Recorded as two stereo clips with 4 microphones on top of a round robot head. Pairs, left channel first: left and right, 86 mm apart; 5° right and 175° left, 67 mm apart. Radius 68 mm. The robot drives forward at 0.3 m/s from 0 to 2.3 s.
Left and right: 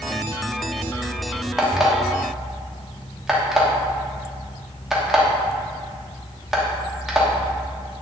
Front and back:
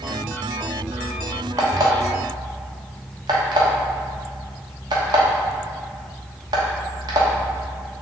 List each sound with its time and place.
1.6 s an alarm clock: 175° right, 0.8 m